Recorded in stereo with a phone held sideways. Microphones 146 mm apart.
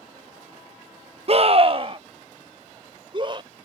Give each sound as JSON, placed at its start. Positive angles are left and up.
{"t": 1.3, "sound": "a scream", "side_deg": -45}